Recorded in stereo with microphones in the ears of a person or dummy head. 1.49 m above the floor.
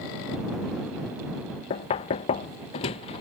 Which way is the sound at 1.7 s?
30° left (ahead or behind).